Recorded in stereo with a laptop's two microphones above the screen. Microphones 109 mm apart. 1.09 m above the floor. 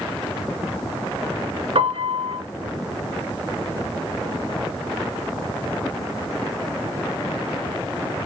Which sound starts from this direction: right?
A piano, at 1.8 s.